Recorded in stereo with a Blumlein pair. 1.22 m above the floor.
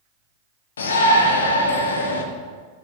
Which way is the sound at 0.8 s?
65° left.